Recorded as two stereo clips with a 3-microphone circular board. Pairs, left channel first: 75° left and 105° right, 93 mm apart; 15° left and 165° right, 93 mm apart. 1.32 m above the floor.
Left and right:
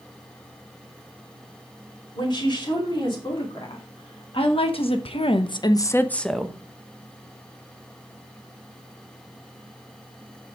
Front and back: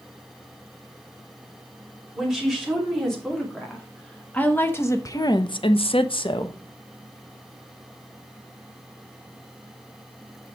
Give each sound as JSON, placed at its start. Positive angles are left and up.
{"t": 2.1, "sound": "a woman speaking", "azimuth_deg": 105, "distance_m": 3.5}